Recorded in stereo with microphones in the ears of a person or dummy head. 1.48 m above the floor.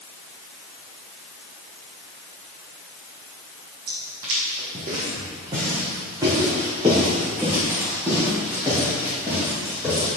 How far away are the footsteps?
About 3 m.